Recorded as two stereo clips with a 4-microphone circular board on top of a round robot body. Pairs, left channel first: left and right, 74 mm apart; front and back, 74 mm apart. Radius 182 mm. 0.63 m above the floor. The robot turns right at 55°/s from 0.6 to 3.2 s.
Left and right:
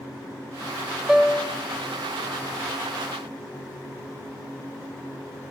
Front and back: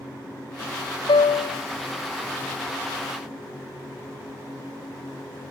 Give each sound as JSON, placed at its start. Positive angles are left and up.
{"t": 1.1, "sound": "a piano", "azimuth_deg": -5, "distance_m": 0.6}